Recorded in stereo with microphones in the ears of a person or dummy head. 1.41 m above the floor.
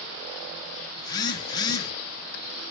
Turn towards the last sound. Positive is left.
turn(degrees=25)  # may be behind; listen again after turning